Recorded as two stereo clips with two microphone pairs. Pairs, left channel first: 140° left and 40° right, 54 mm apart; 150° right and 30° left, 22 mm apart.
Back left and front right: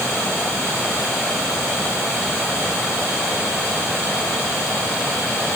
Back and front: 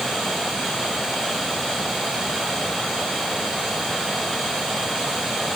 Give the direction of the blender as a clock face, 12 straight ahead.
I don't hear a blender.